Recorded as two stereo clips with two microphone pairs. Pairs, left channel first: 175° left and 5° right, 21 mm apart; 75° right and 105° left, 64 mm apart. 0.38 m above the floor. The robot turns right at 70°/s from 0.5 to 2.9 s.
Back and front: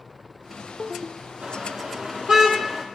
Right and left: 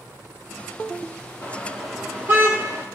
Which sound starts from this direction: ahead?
A car horn, at 1.4 s.